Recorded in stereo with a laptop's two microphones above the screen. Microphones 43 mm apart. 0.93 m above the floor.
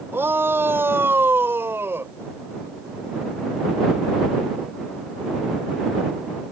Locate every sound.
0.1 s a shout: 70° right (ahead or behind); by 2.1 s 75° right (ahead or behind)